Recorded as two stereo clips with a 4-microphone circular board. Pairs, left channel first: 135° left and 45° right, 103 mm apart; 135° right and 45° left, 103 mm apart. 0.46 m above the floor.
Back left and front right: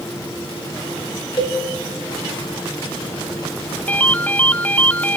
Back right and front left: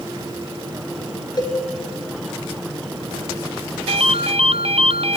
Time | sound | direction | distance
1.4 | a cowbell | straight behind | 3 m
3.9 | a ringtone | 60° left | 0.6 m